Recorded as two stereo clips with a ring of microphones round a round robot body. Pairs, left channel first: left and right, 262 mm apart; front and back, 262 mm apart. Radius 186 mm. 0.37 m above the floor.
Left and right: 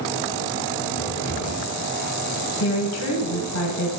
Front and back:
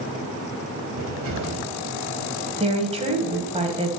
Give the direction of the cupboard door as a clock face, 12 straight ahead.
7 o'clock.